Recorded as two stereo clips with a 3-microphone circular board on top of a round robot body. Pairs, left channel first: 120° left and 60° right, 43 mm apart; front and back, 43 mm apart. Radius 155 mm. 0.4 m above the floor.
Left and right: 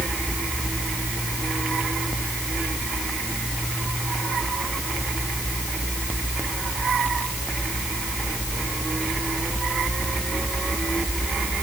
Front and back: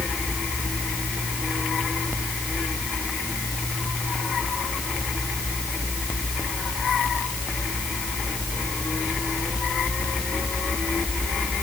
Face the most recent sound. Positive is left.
No sound to turn to.